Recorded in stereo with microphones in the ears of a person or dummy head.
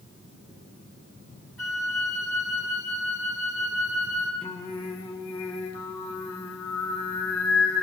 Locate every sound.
1.6 s a flute: 20° left (ahead or behind), 2 m
4.4 s singing: 30° left (ahead or behind), 1.6 m